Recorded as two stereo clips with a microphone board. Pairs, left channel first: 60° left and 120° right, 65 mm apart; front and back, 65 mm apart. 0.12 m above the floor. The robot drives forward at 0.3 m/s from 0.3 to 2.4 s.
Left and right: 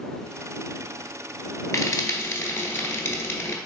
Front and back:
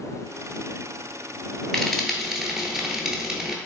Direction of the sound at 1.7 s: 80° left.